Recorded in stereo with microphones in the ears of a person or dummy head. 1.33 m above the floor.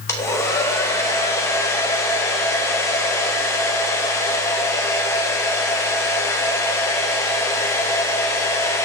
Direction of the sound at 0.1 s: 10° left (ahead or behind).